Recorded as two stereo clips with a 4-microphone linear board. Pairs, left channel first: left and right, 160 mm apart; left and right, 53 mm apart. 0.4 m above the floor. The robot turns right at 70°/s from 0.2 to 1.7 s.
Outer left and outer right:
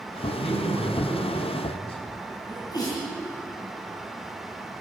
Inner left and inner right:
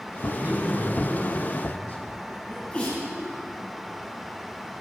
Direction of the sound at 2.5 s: 25° left (ahead or behind).